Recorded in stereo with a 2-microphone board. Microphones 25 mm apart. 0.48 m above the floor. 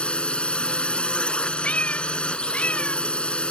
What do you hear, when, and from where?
0.0 s a drone: 45° left (ahead or behind)
1.6 s a cat meowing: 75° left (ahead or behind)